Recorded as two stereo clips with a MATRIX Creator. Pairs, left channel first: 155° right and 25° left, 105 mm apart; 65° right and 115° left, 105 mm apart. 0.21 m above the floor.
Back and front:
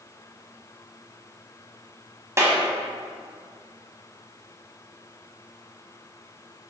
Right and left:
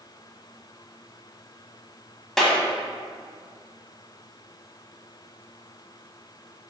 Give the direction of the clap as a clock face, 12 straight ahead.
11 o'clock.